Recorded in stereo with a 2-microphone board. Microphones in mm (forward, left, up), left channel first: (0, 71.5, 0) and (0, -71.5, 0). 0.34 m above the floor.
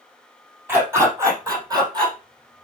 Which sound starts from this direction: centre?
A dog barking, at 0.7 s.